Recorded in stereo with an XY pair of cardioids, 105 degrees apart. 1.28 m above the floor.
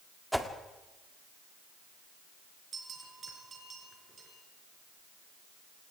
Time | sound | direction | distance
0.3 | a whoosh | straight ahead | 2 m
2.7 | a bell | 40° right | 6.5 m